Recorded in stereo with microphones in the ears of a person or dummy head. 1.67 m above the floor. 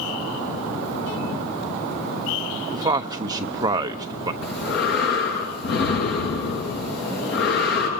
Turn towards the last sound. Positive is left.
turn(degrees=55)  # may be behind; listen again after turning